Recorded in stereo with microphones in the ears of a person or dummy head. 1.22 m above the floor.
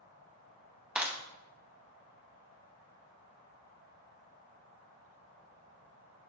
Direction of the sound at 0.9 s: Centre (ahead or behind).